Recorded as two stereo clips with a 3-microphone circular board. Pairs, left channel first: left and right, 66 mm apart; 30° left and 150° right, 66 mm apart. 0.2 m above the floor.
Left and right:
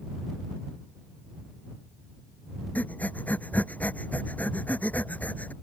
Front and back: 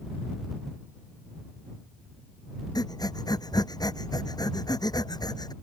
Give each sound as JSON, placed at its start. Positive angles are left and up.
{"t": 2.8, "sound": "breathing", "azimuth_deg": 20}